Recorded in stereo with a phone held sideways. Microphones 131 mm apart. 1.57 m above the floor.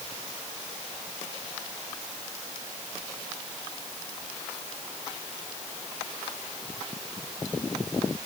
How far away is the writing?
No writing in this recording.